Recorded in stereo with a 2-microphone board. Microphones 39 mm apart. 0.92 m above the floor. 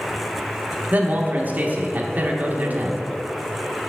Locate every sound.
0.9 s a man speaking: 50° right (ahead or behind), 1.1 m